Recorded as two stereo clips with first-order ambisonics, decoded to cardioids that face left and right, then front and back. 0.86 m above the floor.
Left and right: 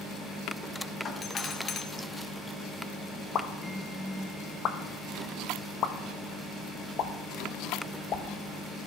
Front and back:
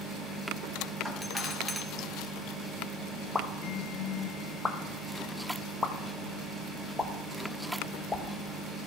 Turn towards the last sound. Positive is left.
turn(degrees=70)